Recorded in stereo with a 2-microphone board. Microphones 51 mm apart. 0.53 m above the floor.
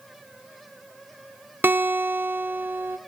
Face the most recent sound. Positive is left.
turn(degrees=-40)  # may be behind; listen again after turning